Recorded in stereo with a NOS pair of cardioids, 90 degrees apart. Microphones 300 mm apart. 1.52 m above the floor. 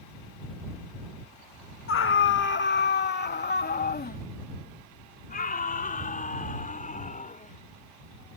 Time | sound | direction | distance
1.9 | a scream | 45° left | ?